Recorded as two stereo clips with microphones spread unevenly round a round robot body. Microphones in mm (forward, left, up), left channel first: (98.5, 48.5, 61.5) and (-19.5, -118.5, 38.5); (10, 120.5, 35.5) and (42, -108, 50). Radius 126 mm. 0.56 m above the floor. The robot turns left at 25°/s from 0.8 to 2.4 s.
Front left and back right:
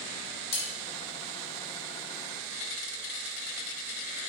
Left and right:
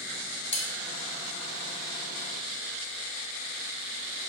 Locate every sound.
0.5 s cutlery clinking: 40° left, 1.0 m